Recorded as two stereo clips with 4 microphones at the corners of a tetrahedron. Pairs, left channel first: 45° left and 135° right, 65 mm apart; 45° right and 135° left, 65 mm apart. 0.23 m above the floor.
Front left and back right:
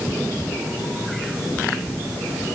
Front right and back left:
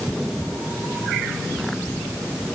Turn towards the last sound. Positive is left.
No sound to turn to.